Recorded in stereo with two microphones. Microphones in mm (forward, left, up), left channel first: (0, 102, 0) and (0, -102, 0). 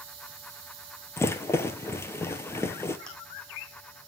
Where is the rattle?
10° left (ahead or behind), 1.1 m.